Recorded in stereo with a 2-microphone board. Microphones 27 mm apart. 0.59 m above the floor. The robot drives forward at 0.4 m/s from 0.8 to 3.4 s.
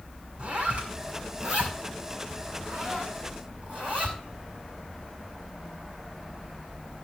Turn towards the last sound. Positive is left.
turn(degrees=-35)  # may be behind; listen again after turning